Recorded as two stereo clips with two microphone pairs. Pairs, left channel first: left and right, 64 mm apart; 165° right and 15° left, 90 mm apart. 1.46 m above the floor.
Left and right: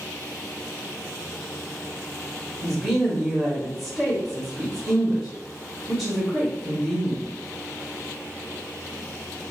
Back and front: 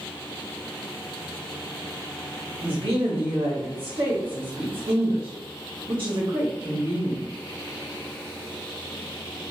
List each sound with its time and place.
2.6 s a woman speaking: 10° right, 0.9 m